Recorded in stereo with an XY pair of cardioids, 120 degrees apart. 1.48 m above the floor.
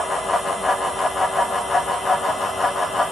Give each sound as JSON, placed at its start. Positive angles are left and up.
{"t": 0.0, "sound": "a fan", "azimuth_deg": 20, "distance_m": 2.5}